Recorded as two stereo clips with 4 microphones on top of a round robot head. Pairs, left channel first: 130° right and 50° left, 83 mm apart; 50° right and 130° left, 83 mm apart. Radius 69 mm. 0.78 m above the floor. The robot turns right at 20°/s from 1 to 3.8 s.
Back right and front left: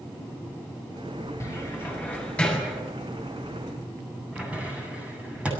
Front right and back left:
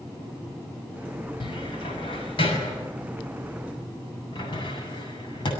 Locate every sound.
1.4 s a cupboard door: 75° right, 7.5 m; by 5.5 s 25° right, 7.5 m